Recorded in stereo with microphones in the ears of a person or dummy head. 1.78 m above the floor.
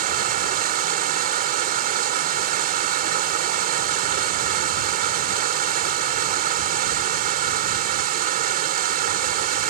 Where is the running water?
50° right (ahead or behind).